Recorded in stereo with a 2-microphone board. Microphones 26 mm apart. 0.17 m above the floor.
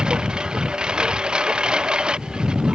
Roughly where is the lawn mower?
Right.